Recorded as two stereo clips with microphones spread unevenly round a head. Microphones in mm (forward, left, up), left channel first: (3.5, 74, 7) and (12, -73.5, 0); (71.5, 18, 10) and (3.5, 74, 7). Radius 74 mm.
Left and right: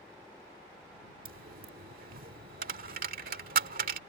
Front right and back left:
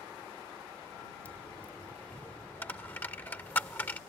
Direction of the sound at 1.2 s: 115° right.